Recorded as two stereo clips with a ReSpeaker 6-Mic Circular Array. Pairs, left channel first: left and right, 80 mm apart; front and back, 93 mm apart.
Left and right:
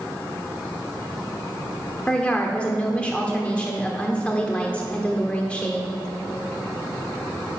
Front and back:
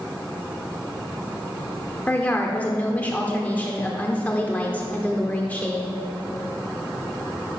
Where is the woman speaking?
40° left, 1.1 m.